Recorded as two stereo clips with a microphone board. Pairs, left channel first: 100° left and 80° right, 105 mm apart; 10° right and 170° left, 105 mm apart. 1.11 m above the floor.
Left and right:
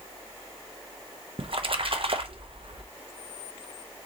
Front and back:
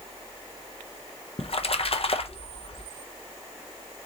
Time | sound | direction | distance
1.4 | a splash | 40° right | 0.6 m